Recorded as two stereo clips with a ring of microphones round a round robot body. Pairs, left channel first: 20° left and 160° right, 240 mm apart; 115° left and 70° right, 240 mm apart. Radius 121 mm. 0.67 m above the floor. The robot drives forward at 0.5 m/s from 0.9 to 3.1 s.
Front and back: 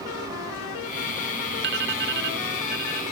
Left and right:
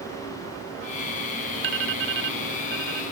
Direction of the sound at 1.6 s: 110° right.